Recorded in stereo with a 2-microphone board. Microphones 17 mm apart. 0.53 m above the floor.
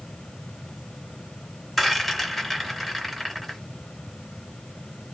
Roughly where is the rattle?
Centre.